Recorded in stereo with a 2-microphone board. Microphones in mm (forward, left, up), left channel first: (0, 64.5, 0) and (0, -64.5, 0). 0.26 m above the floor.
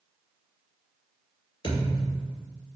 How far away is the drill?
No drill in this recording.